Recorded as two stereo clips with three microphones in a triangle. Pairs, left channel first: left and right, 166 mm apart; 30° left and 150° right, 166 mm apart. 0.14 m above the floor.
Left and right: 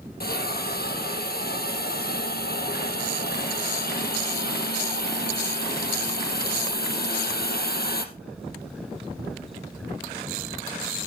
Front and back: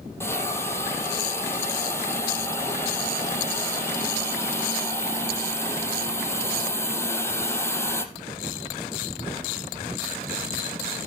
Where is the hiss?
105° left, 2.5 m.